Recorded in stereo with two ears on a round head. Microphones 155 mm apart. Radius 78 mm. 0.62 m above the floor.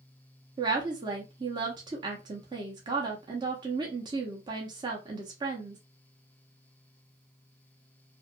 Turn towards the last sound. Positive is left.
turn(degrees=-25)  # may be behind; listen again after turning